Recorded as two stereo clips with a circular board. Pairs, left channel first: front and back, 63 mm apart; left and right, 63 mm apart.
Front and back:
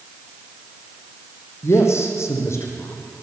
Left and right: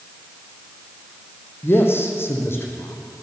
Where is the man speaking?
40° left, 4.5 m.